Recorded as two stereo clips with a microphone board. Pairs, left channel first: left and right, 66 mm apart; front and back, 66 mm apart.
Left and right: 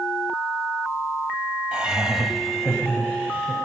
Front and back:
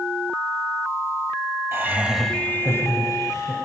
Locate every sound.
1.7 s laughter: 155° right, 1.2 m; by 3.5 s 15° left, 2 m